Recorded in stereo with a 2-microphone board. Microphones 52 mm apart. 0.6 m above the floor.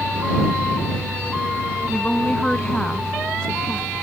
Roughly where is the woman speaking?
Centre.